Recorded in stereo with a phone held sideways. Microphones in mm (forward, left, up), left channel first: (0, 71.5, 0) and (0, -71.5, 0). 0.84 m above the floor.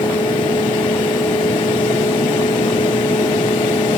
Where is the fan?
35° left (ahead or behind), 1.4 m.